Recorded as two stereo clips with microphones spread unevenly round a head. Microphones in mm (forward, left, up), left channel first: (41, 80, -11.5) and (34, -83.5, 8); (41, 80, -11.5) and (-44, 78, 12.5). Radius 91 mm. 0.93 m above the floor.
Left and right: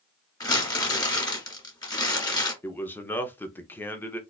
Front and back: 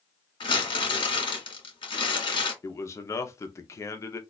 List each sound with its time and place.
0.4 s crumpling: 20° left, 1.7 m
2.6 s a man speaking: 20° left, 0.6 m